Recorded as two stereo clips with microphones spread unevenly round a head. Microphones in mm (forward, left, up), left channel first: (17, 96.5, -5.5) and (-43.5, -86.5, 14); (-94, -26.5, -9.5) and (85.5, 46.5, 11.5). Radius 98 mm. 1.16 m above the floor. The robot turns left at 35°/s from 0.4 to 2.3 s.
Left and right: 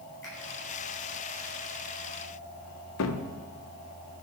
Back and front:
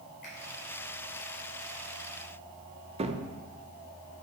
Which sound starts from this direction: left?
A cupboard door, at 3.0 s.